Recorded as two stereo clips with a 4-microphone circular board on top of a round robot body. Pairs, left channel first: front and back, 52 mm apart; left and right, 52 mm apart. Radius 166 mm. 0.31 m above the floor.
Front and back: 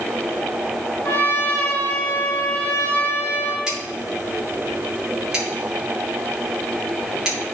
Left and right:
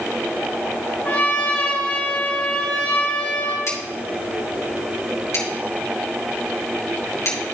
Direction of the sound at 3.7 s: 105° left.